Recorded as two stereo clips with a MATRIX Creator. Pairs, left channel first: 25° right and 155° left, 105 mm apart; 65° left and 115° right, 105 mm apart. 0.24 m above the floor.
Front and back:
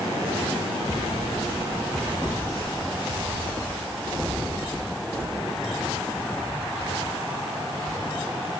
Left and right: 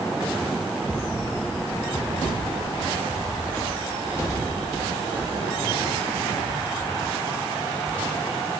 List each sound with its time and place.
Only background noise.